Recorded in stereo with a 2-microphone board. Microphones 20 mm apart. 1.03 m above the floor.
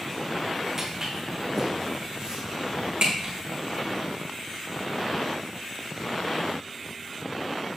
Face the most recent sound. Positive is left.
turn(degrees=-55)  # may be behind; listen again after turning